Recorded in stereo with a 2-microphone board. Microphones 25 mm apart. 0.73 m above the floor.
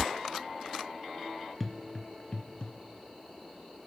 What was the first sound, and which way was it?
Footsteps, 10° right (ahead or behind).